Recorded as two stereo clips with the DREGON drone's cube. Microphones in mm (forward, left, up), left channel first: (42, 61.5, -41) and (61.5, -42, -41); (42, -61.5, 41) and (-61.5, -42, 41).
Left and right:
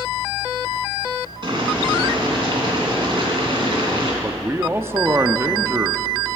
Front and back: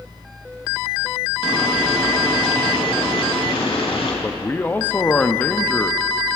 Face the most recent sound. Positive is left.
turn(degrees=-60)